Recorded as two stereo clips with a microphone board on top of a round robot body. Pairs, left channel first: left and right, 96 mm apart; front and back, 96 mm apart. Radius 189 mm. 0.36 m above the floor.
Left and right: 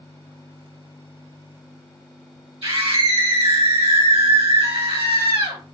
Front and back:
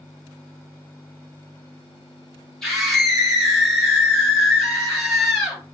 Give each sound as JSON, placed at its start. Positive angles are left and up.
{"t": 2.6, "sound": "a scream", "azimuth_deg": -85, "distance_m": 3.0}